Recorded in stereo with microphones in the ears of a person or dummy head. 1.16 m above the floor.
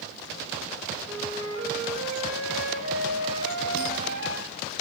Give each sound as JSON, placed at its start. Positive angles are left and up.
{"t": 1.0, "sound": "a flute", "side_deg": -90, "distance_m": 5.5}